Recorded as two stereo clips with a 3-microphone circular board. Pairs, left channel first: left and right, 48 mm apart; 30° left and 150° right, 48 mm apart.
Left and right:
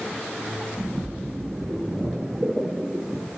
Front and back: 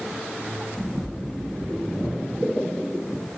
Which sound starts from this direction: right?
A splash, at 0.8 s.